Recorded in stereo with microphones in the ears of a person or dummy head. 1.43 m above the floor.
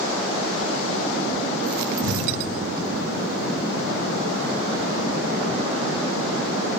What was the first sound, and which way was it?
An explosion, 65° right (ahead or behind).